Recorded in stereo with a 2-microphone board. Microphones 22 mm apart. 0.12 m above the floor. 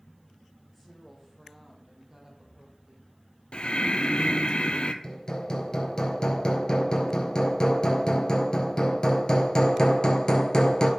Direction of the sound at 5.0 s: 35° left (ahead or behind).